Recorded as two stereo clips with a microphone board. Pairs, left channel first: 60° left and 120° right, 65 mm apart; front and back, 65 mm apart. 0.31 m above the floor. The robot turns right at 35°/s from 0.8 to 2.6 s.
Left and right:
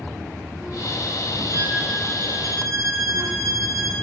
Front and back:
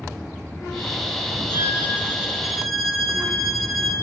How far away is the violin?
About 2 m.